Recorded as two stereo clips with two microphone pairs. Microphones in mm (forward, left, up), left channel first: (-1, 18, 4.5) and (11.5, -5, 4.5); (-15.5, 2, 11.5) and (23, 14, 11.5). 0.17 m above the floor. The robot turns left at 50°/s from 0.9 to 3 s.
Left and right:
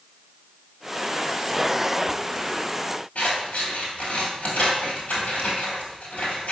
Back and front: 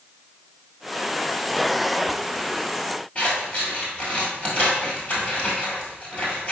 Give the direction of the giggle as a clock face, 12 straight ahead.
No giggle in this recording.